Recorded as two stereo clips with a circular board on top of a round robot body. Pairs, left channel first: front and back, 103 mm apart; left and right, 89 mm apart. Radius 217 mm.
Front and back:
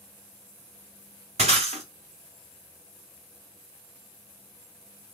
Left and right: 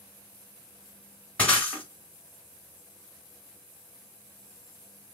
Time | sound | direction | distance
1.4 | breaking glass | 170° left | 1.6 m